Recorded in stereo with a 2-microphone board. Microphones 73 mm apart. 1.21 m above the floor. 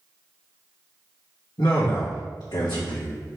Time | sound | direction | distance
1.6 | a man speaking | 75° left (ahead or behind) | 1.7 m